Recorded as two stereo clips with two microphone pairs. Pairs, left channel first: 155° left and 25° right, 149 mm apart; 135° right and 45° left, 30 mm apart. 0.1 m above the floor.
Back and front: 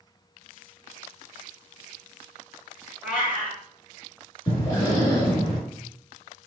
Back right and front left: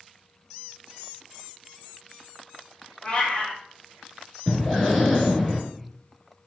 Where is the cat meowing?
100° right, 1.2 m.